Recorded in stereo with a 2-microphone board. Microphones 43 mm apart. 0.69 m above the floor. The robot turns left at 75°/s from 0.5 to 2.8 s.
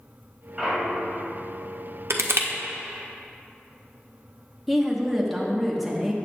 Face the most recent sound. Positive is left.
turn(degrees=0)  # may be behind; listen again after turning